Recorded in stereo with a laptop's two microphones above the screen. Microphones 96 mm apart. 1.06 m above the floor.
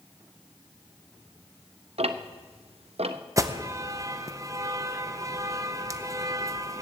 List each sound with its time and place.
2.0 s ticking: 80° right, 0.6 m
3.4 s an alarm: 35° right (ahead or behind), 0.6 m